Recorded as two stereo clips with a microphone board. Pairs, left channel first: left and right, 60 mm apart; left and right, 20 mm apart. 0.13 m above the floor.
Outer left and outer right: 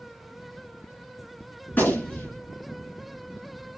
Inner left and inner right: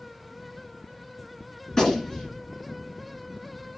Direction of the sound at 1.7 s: 30° left (ahead or behind).